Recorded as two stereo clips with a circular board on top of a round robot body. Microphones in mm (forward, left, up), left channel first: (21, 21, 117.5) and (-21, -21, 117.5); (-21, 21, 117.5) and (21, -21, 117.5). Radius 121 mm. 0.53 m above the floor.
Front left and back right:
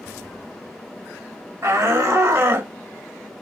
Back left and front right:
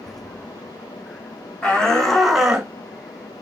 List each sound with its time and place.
1.6 s a shout: 160° right, 2.5 m; by 2.7 s 110° right, 1.6 m